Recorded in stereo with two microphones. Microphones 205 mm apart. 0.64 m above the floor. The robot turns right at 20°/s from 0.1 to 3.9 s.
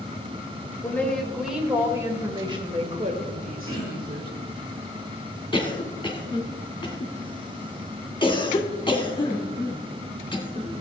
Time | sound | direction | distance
0.8 | a woman speaking | 170° left | 2 m
3.7 | throat clearing | 20° right (ahead or behind) | 6.5 m
5.5 | a cough | 25° left (ahead or behind) | 1.9 m